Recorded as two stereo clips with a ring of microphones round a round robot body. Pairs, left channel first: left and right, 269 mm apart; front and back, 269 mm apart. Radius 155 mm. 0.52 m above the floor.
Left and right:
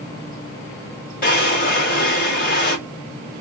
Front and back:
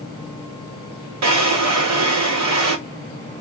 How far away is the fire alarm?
No fire alarm in this recording.